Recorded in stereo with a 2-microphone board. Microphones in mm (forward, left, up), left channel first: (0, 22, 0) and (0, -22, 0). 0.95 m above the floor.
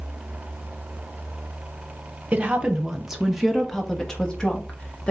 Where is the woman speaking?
30° right (ahead or behind), 0.9 m; by 5.1 s 30° left (ahead or behind), 1.6 m.